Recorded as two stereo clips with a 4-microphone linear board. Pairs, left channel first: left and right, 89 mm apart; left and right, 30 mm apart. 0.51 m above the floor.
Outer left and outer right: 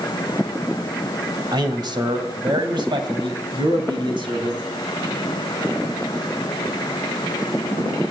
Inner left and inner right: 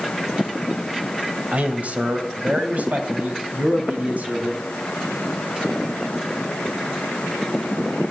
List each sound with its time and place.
1.5 s a man speaking: 55° right (ahead or behind), 2.0 m; by 4.6 s 65° right (ahead or behind), 3.5 m